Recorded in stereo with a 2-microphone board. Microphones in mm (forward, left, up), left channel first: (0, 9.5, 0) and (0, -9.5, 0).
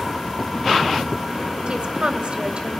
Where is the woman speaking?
60° right (ahead or behind), 2.5 m.